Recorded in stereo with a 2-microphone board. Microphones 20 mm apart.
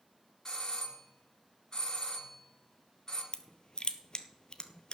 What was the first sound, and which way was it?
A doorbell, 35° left (ahead or behind).